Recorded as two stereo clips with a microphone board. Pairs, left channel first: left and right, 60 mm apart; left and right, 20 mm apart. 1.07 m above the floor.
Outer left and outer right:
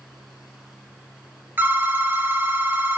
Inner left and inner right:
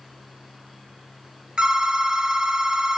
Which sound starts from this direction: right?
A phone ringing, at 1.6 s.